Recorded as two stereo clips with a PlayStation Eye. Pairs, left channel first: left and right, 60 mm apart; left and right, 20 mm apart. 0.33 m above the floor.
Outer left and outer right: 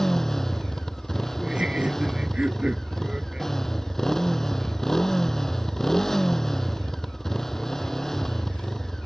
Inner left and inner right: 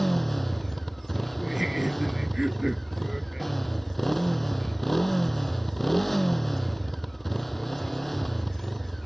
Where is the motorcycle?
5° left (ahead or behind).